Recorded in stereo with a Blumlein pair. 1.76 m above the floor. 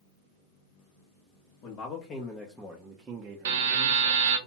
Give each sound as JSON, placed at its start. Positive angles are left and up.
{"t": 1.6, "sound": "a man speaking", "azimuth_deg": 40, "distance_m": 0.8}
{"t": 3.5, "sound": "a buzzer", "azimuth_deg": -60, "distance_m": 0.8}